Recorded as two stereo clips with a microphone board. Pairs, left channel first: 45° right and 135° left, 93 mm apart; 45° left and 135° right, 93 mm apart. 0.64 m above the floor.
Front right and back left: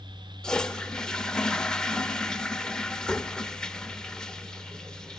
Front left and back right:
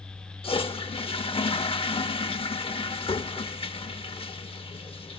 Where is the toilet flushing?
35° left, 0.6 m.